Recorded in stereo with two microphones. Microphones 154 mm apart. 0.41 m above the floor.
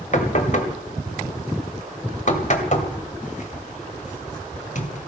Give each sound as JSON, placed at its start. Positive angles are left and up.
{"t": 0.1, "sound": "knocking", "side_deg": 55, "distance_m": 1.8}